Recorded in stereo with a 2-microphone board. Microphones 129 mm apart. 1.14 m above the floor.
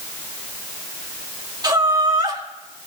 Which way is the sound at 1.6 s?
35° right (ahead or behind).